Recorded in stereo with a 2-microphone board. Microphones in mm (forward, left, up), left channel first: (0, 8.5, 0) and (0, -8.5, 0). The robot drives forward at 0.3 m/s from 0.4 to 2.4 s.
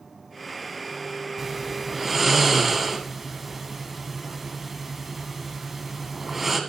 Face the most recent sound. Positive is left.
turn(degrees=-20)  # may be behind; listen again after turning